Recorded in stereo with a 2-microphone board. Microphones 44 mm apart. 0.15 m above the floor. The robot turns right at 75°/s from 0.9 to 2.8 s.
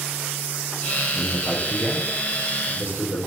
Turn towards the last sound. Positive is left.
turn(degrees=75)  # may be behind; listen again after turning